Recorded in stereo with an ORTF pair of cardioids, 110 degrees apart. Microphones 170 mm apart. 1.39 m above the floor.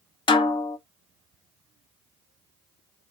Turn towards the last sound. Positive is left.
turn(degrees=25)